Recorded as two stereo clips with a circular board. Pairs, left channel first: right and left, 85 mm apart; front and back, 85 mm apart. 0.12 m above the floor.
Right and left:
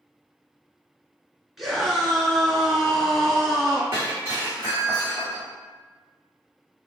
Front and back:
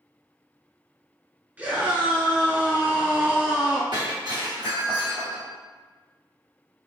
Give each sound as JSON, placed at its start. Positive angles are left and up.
{"t": 1.6, "sound": "a scream", "azimuth_deg": 175, "distance_m": 1.3}
{"t": 3.9, "sound": "breaking glass", "azimuth_deg": 150, "distance_m": 1.8}